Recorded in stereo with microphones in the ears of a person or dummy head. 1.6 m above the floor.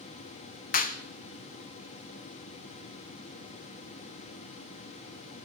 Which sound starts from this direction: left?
A clap, at 0.7 s.